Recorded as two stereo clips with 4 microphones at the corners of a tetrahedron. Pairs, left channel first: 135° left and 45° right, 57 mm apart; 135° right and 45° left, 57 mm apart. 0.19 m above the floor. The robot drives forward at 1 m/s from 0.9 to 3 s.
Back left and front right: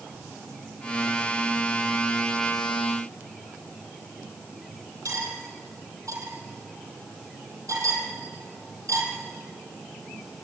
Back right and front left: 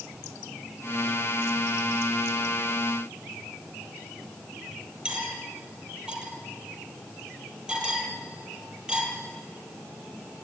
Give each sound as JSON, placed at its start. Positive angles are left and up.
{"t": 5.0, "sound": "cutlery clinking", "azimuth_deg": -25, "distance_m": 4.0}